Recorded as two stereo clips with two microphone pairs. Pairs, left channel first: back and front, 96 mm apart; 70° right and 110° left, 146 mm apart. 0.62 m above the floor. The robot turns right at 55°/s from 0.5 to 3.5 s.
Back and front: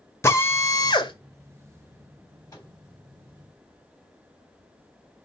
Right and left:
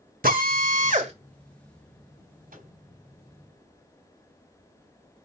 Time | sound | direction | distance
0.2 | a drill | 115° left | 1.6 m
2.5 | a microwave | 125° left | 4 m